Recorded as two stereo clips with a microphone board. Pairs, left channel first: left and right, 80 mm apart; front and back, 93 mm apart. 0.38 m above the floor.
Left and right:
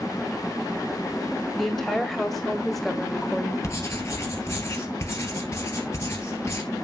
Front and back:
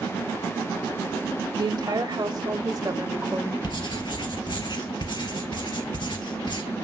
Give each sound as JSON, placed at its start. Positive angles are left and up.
{"t": 1.6, "sound": "a woman speaking", "azimuth_deg": 175, "distance_m": 2.5}
{"t": 3.6, "sound": "writing", "azimuth_deg": 35, "distance_m": 2.0}